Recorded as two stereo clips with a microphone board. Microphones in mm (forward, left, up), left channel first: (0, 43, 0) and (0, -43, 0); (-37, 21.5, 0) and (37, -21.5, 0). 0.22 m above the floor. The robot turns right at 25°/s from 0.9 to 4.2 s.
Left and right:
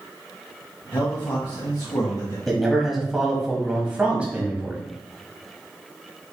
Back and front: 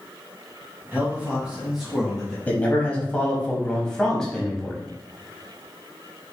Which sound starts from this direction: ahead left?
A man speaking, at 0.9 s.